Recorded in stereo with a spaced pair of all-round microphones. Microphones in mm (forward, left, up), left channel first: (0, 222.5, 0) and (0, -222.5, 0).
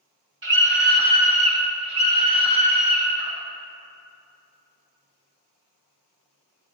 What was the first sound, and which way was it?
A scream, 80° right.